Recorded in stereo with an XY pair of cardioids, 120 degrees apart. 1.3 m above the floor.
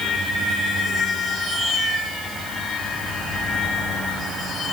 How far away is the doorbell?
I don't hear a doorbell.